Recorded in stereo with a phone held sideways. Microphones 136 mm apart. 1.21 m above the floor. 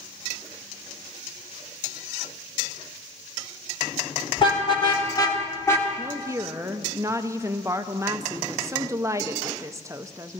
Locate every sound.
4.4 s a car horn: 40° left (ahead or behind), 2 m; by 5.9 s 20° left (ahead or behind), 1.7 m
6.0 s a woman speaking: 20° right (ahead or behind), 0.6 m